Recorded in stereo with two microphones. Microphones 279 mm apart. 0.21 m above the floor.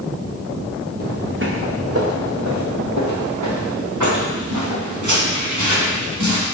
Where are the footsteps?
30° right (ahead or behind), 1.8 m; by 6.5 s 75° right (ahead or behind), 5 m.